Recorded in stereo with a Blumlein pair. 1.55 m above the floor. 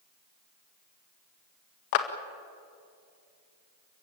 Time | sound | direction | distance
1.9 | a clap | 45° left | 1.9 m